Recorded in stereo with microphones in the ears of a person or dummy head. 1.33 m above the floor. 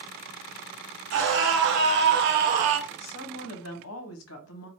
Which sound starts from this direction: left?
A woman speaking, at 2.9 s.